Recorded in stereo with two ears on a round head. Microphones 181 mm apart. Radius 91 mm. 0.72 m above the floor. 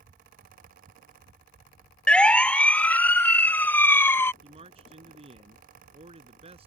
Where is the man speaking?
30° right (ahead or behind).